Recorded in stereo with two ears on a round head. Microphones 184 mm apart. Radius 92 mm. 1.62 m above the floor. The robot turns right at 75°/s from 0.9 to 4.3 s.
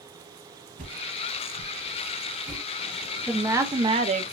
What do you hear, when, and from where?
0.8 s a whoosh: 40° right (ahead or behind), 0.9 m; by 2.6 s 10° right (ahead or behind), 0.9 m
3.3 s a woman speaking: straight behind, 0.6 m; by 4.3 s 100° right, 0.6 m